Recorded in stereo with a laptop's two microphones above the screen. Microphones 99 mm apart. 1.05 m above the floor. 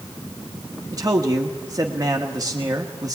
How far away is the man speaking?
About 1.4 m.